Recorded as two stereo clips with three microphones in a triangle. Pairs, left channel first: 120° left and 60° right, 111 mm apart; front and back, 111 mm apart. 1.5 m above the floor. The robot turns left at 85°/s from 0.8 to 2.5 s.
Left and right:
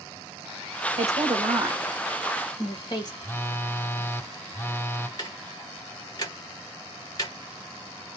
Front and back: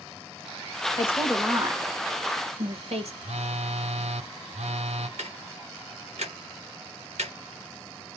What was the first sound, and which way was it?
A woman speaking, 60° right.